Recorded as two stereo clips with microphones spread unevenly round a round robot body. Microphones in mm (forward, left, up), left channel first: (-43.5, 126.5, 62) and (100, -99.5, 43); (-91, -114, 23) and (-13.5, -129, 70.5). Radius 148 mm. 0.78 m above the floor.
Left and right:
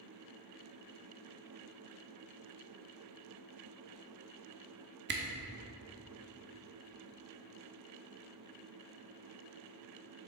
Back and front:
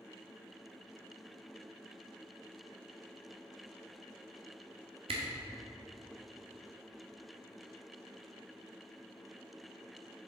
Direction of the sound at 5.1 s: 10° right.